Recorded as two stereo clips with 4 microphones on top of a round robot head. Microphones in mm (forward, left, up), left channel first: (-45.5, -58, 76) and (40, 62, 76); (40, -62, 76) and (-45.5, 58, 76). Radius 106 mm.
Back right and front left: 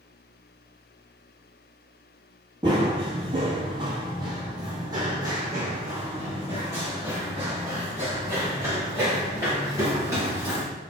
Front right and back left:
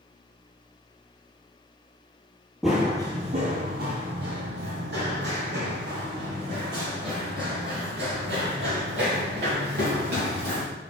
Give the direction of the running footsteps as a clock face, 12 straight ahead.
11 o'clock.